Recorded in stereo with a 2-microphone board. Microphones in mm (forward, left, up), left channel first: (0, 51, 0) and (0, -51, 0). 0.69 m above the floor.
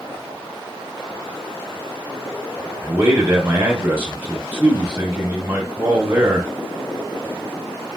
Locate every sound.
2.8 s a man speaking: 20° right (ahead or behind), 1.2 m